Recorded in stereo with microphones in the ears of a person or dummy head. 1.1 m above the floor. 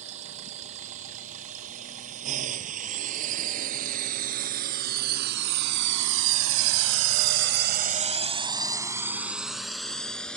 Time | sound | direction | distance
0.0 | a drone | 35° right (ahead or behind) | ?